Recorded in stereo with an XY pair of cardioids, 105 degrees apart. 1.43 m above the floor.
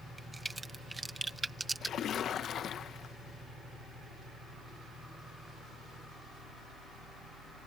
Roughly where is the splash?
Ahead left.